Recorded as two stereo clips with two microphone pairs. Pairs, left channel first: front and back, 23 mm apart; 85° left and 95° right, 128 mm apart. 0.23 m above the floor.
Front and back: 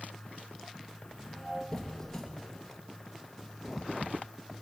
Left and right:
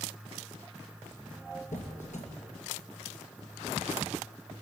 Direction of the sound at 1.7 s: 80° left.